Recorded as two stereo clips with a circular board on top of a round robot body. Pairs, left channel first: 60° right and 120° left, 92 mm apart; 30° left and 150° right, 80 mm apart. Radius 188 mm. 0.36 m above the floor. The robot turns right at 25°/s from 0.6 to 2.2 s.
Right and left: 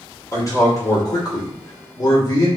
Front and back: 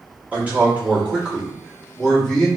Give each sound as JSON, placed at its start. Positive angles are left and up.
{"t": 0.3, "sound": "a man speaking", "azimuth_deg": -90, "distance_m": 1.5}